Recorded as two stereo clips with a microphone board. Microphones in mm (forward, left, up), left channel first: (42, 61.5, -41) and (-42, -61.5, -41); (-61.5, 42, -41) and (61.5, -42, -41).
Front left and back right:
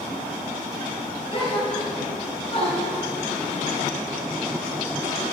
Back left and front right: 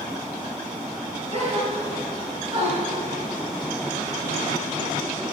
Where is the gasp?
10° left, 3 m.